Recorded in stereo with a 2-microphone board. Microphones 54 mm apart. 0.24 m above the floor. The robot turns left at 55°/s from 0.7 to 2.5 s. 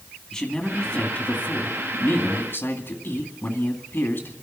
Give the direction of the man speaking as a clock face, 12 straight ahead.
6 o'clock.